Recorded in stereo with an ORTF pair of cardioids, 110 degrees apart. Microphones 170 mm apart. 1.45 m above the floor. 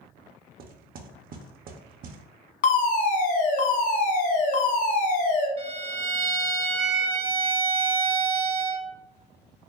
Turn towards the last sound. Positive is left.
turn(degrees=-35)